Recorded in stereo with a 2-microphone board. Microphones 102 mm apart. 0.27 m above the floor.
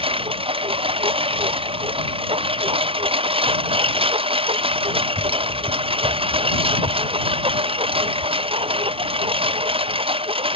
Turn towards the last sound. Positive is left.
turn(degrees=-65)  # may be behind; listen again after turning